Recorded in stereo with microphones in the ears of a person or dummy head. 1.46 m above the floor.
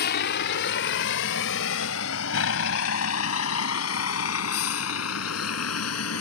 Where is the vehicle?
55° left (ahead or behind); by 6.2 s 85° left.